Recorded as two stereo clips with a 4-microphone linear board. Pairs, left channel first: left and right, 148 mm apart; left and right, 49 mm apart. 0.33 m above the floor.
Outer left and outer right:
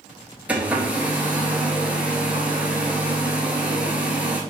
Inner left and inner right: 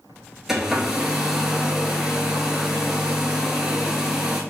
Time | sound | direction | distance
0.5 | a hair dryer | 10° right (ahead or behind) | 0.8 m